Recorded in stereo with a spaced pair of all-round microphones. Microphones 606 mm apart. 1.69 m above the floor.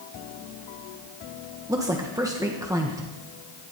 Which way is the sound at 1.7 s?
5° right (ahead or behind).